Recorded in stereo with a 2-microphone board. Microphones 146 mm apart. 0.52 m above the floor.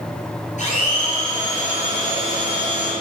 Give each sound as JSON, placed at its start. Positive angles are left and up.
{"t": 0.6, "sound": "a blender", "side_deg": 55, "distance_m": 3.0}